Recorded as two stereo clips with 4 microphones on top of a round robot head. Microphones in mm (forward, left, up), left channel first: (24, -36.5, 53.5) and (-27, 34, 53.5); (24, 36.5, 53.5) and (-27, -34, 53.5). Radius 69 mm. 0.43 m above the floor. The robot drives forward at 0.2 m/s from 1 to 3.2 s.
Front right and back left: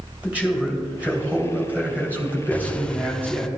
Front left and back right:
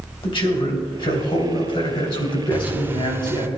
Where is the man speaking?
50° left, 2.5 m; by 3.5 s 60° left, 2.5 m.